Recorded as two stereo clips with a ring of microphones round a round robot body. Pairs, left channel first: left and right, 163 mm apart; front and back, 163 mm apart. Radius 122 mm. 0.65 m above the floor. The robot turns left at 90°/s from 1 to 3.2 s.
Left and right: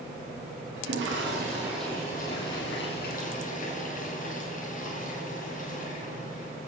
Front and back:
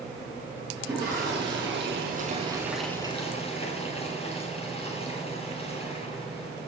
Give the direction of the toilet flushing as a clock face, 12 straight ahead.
4 o'clock.